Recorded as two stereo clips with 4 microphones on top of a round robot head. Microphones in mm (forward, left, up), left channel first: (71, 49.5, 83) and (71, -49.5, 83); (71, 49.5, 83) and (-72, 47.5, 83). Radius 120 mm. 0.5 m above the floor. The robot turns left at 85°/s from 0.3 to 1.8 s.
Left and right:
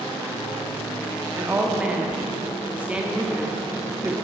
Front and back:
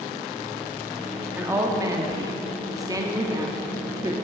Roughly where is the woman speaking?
Behind right.